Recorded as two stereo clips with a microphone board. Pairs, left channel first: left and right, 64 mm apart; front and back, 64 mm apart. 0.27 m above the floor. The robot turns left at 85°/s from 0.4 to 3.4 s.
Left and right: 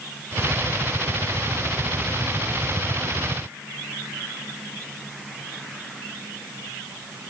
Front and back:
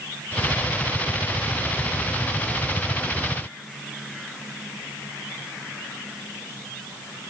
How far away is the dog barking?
I don't hear a dog barking.